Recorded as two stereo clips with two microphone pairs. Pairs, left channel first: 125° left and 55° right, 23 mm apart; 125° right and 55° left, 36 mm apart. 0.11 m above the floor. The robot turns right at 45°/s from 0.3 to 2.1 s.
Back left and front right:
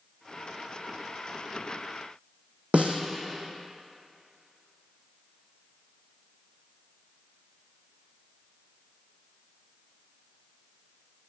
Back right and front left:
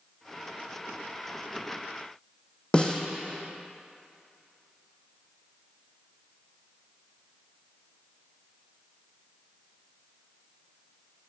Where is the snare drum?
60° right, 1.1 m.